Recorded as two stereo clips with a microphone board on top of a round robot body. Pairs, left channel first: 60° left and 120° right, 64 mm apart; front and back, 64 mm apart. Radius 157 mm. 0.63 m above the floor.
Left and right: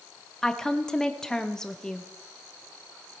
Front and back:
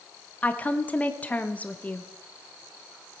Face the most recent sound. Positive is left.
turn(degrees=-5)